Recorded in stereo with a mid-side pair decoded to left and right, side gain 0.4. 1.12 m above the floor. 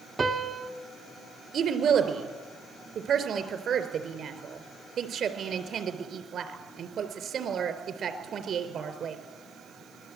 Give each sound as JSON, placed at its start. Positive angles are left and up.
{"t": 0.2, "sound": "a piano", "azimuth_deg": -40, "distance_m": 1.6}
{"t": 1.5, "sound": "a woman speaking", "azimuth_deg": -60, "distance_m": 3.5}